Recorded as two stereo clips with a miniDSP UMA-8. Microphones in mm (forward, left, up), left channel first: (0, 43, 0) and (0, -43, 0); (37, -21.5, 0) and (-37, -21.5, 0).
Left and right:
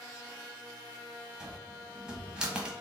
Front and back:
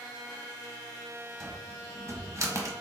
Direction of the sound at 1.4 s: 165° right.